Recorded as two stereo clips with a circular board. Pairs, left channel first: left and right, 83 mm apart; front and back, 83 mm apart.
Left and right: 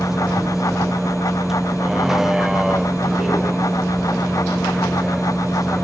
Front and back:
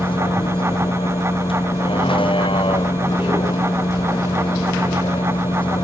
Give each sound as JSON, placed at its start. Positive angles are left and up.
{"t": 0.0, "sound": "a vehicle", "azimuth_deg": -5}